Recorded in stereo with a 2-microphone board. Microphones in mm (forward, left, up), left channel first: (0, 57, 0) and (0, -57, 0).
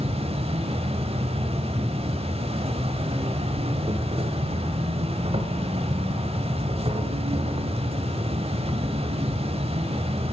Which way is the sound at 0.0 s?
55° right (ahead or behind).